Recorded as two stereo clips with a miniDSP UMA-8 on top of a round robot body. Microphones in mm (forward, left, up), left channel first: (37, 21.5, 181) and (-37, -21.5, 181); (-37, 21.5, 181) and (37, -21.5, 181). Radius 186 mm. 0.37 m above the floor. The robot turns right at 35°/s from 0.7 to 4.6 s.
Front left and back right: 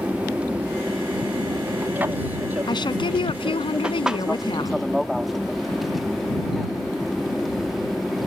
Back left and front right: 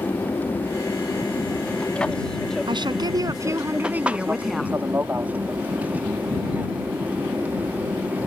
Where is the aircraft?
160° left; by 8.3 s 60° right.